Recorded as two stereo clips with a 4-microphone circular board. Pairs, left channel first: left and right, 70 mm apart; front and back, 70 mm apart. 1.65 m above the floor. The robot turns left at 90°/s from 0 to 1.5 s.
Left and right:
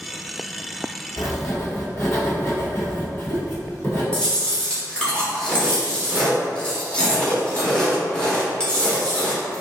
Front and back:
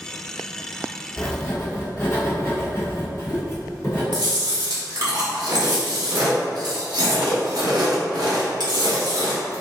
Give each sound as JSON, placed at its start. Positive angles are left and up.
{"t": 1.2, "sound": "writing", "azimuth_deg": 75, "distance_m": 1.2}
{"t": 4.1, "sound": "chewing", "azimuth_deg": 165, "distance_m": 1.0}